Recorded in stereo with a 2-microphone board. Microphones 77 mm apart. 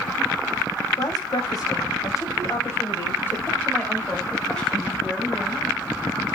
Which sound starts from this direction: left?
A woman speaking, at 1.0 s.